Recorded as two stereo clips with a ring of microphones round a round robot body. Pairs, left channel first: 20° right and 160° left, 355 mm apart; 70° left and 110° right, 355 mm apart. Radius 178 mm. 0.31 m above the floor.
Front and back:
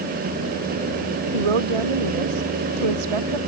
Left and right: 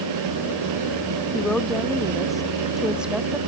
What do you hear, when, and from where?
1.3 s a woman speaking: 155° left; by 3.4 s 160° left